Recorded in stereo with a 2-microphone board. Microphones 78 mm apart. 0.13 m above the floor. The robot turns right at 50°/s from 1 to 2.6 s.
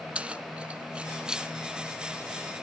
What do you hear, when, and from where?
0.1 s keys jangling: 15° right (ahead or behind), 0.8 m; by 1.5 s 5° right (ahead or behind), 0.8 m